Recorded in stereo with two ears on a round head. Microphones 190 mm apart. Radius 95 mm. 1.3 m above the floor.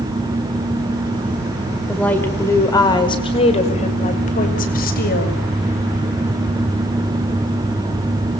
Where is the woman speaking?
5° left (ahead or behind), 5 m; by 5.4 s 50° left (ahead or behind), 7 m.